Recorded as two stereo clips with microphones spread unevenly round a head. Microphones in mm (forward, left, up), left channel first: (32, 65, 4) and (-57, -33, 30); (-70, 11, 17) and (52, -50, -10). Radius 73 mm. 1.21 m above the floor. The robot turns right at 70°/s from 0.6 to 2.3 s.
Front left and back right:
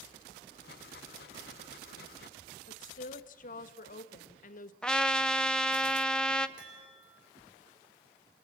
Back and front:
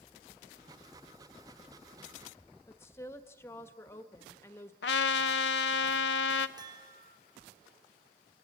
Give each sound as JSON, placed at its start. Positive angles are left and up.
{"t": 2.7, "sound": "a woman speaking", "azimuth_deg": 80, "distance_m": 1.3}
{"t": 4.8, "sound": "a trumpet", "azimuth_deg": 130, "distance_m": 0.8}
{"t": 6.6, "sound": "a chime", "azimuth_deg": -90, "distance_m": 5.0}